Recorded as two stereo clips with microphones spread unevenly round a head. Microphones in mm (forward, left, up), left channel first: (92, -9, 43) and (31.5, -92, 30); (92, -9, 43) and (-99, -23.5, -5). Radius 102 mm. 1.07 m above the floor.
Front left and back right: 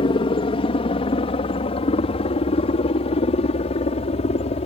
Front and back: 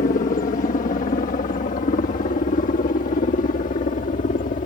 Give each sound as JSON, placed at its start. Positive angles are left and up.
{"t": 0.0, "sound": "a helicopter", "azimuth_deg": 55}